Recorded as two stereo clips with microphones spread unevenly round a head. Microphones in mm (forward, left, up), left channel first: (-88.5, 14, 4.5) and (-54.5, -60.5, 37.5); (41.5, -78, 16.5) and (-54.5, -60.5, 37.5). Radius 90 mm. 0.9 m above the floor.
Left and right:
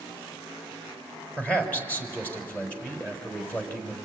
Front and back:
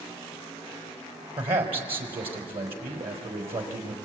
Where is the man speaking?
170° right, 4.5 m.